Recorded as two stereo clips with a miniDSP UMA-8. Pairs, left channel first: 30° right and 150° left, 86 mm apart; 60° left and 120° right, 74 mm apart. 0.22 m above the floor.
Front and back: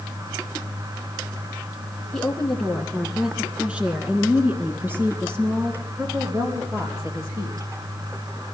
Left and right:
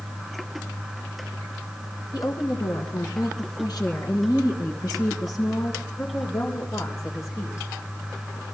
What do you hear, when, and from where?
2.1 s a woman speaking: 50° left, 2.5 m; by 7.7 s 105° left, 5 m